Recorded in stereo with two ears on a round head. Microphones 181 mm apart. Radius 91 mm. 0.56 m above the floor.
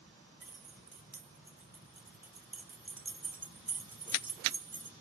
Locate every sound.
0.4 s keys jangling: 10° right (ahead or behind), 1.4 m